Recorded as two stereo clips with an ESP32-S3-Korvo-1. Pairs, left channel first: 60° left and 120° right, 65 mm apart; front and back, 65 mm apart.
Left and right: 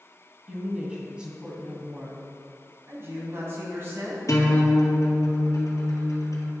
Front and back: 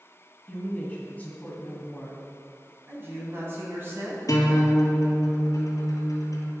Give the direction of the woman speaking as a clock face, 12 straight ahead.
2 o'clock.